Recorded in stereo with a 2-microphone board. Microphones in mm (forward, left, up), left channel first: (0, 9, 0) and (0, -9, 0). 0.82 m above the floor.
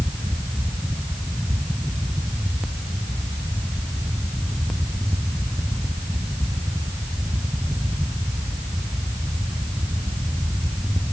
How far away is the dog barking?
No dog barking in this recording.